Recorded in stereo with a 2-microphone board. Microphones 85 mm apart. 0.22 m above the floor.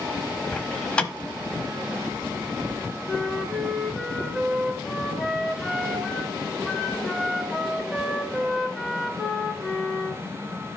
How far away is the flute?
About 1.1 m.